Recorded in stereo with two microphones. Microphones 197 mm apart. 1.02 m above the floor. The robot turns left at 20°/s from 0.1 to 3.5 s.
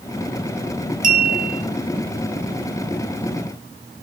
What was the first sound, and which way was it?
A clink, 45° right (ahead or behind).